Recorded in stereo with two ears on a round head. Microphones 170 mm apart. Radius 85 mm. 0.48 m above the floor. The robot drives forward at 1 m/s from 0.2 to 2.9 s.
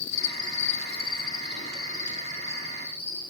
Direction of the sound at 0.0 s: 60° left (ahead or behind).